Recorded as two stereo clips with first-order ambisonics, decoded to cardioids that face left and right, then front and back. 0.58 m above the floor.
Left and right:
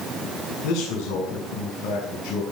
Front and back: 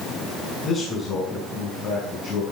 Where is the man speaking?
60° left, 7 m.